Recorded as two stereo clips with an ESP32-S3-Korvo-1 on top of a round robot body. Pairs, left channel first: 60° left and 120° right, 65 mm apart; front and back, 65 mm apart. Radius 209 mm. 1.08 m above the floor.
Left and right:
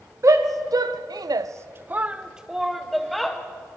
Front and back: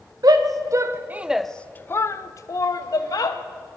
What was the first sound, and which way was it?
A shout, 155° right.